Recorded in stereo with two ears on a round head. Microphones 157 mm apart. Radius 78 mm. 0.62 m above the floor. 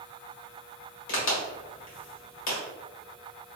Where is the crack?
80° left, 1.4 m.